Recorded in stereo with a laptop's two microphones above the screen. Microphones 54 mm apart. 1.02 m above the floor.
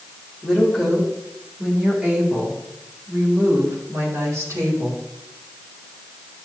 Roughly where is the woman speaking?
Centre.